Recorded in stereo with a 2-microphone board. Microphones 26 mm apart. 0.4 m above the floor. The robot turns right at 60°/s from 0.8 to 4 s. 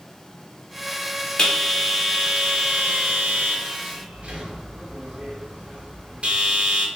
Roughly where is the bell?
Left.